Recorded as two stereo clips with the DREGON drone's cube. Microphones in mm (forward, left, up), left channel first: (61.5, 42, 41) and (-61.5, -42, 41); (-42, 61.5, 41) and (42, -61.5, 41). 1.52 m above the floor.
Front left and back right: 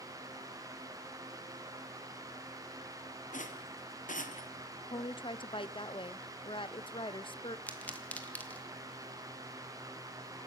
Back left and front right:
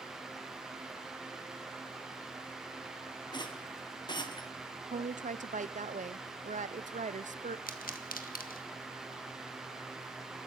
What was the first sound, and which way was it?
A rattle, 65° left.